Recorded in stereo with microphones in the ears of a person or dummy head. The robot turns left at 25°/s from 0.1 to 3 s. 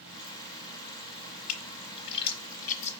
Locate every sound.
1.5 s a splash: 70° left (ahead or behind), 1.3 m; by 2.9 s 40° left (ahead or behind), 1.3 m